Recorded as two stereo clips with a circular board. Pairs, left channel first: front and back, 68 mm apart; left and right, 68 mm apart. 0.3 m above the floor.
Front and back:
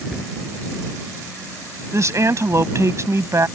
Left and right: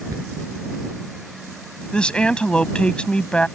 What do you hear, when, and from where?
0.1 s a cupboard door: 100° right
1.9 s a woman speaking: 160° left